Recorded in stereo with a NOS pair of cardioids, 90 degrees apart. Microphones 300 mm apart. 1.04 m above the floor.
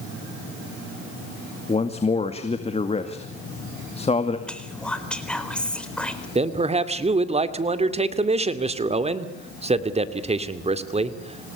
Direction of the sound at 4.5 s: 5° left.